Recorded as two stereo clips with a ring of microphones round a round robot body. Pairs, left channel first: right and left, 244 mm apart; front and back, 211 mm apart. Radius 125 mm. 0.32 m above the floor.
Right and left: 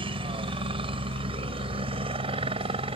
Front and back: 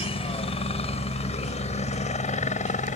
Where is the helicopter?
40° left; by 3.0 s 35° left.